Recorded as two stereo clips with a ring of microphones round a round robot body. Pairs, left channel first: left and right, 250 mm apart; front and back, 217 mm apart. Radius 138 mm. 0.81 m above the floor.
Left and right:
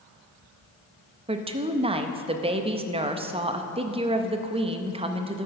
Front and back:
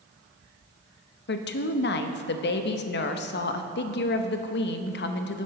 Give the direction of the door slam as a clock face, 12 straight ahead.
No door slam in this recording.